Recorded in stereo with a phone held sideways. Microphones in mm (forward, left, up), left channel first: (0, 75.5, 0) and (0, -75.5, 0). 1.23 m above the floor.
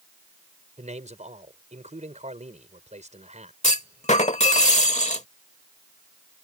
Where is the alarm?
No alarm in this recording.